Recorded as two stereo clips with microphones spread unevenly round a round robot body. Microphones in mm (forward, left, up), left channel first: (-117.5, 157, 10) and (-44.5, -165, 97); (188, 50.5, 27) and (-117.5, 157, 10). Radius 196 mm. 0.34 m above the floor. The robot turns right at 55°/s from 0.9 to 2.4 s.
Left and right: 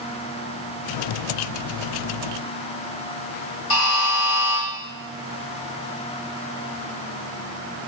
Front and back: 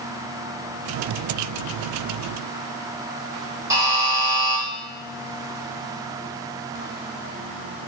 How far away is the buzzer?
About 1.8 m.